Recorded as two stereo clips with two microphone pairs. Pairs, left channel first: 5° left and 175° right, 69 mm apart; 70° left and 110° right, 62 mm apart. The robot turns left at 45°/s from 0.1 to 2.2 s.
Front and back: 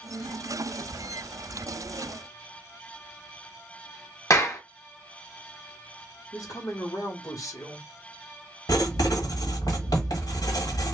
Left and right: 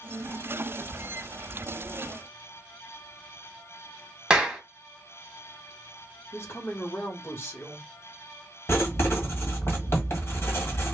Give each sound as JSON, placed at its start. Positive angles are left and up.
{"t": 4.3, "sound": "a clap", "azimuth_deg": -35, "distance_m": 1.1}
{"t": 6.3, "sound": "a woman speaking", "azimuth_deg": 30, "distance_m": 1.0}
{"t": 8.7, "sound": "writing", "azimuth_deg": 25, "distance_m": 1.2}